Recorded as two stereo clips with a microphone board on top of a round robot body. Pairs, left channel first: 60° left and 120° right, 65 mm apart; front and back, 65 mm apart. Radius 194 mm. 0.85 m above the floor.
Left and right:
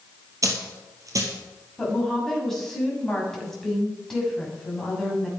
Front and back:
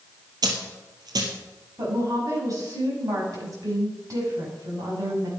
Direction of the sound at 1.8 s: 145° left.